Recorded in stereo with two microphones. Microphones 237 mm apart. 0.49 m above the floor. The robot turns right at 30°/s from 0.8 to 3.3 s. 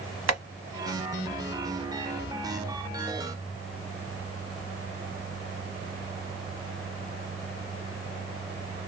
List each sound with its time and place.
0.3 s tapping: 85° right, 1.0 m